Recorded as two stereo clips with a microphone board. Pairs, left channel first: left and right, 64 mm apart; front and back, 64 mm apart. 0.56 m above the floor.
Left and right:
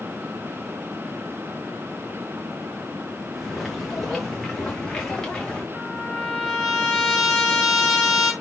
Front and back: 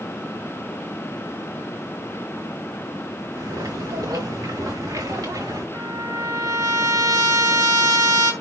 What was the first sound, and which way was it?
Footsteps, straight behind.